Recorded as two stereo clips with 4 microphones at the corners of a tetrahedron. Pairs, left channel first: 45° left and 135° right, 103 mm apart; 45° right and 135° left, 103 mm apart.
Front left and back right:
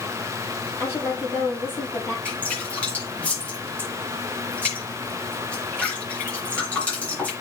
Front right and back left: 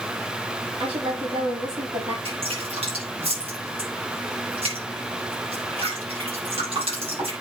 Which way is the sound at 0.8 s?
110° left.